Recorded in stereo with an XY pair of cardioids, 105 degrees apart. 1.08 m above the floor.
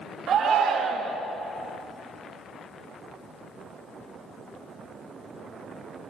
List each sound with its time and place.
0.3 s a shout: 60° right, 1.6 m